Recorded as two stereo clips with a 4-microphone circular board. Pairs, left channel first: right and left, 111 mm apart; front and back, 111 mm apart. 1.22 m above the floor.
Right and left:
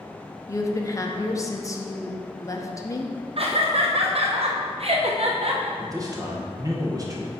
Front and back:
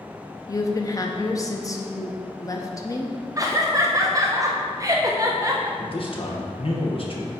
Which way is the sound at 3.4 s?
120° left.